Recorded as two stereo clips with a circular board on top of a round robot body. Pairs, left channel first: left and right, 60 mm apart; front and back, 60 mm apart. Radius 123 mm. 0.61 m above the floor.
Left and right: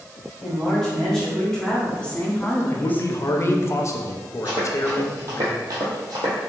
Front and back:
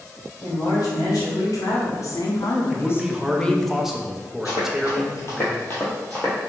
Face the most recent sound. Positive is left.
turn(degrees=-70)